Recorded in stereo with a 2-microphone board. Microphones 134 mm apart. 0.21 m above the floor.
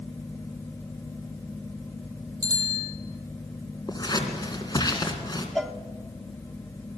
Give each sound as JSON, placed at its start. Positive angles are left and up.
{"t": 2.4, "sound": "a bicycle bell", "side_deg": -30, "distance_m": 5.5}
{"t": 3.9, "sound": "scissors", "side_deg": 30, "distance_m": 3.0}
{"t": 5.5, "sound": "a cowbell", "side_deg": 0, "distance_m": 0.7}